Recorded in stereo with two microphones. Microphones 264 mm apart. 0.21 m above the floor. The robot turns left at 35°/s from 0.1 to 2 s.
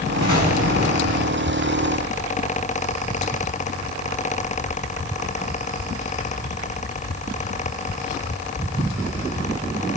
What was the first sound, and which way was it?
An explosion, 105° left.